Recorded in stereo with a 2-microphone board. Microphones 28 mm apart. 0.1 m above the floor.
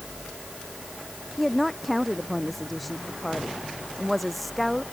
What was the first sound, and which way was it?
A woman speaking, centre (ahead or behind).